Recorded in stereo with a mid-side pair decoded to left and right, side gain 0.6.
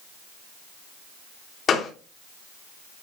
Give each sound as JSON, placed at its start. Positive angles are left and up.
{"t": 1.7, "sound": "a gunshot", "azimuth_deg": 40, "distance_m": 3.0}